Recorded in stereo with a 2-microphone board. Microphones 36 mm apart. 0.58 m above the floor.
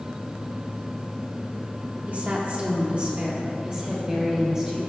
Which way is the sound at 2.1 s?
40° right (ahead or behind).